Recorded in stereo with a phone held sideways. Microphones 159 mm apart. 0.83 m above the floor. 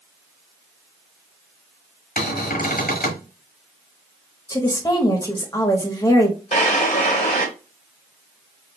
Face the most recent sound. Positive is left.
turn(degrees=45)  # may be behind; listen again after turning